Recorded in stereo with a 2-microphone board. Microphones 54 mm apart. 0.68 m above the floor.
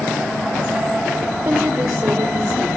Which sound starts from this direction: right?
A woman speaking, at 1.4 s.